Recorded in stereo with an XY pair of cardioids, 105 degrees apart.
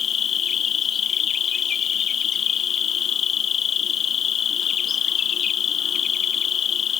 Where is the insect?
60° left.